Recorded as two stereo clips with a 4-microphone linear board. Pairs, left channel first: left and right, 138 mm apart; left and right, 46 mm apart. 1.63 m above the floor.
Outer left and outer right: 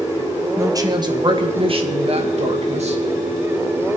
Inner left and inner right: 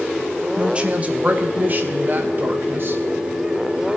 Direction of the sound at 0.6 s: 20° right (ahead or behind).